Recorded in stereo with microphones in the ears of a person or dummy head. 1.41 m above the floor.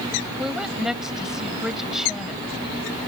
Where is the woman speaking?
5° right (ahead or behind).